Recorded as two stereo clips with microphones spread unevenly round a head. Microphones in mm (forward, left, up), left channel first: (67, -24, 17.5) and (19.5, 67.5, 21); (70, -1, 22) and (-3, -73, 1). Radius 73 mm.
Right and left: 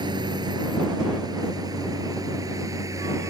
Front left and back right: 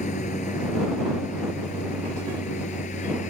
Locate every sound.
0.0 s a lawn mower: 75° left; by 3.3 s 60° left